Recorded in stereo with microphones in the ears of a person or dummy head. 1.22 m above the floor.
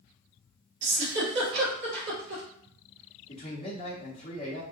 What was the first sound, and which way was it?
A giggle, 60° right (ahead or behind).